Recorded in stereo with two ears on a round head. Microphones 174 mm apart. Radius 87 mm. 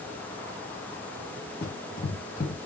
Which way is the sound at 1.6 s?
55° left (ahead or behind).